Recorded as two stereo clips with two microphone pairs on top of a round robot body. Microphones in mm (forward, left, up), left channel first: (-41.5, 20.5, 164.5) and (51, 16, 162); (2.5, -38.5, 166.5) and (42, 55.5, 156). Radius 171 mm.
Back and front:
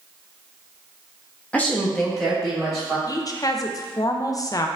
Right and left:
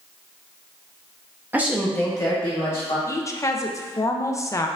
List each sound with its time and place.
1.5 s a woman speaking: 110° left, 1.1 m; by 3.0 s 85° right, 1.9 m
3.1 s a woman speaking: 165° right, 0.5 m